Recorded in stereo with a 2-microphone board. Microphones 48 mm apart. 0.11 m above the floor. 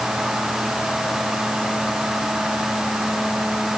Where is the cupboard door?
No cupboard door in this recording.